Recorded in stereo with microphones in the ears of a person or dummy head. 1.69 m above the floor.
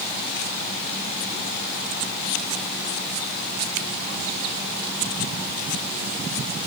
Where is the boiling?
I don't hear boiling.